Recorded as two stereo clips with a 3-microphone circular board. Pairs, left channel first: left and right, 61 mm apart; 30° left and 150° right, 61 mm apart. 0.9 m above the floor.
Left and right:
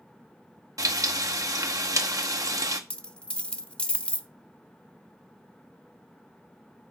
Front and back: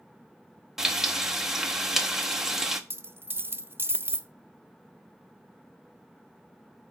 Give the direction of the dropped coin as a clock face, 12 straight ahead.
7 o'clock.